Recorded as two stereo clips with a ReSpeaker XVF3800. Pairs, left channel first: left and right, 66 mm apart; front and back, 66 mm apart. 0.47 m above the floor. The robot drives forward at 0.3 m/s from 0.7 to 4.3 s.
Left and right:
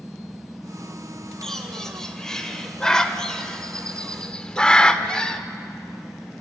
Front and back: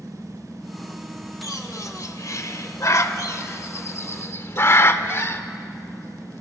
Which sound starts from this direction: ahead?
A bird, at 1.4 s.